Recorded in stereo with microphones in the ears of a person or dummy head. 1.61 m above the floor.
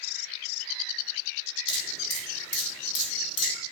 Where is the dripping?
30° left (ahead or behind), 2.5 m.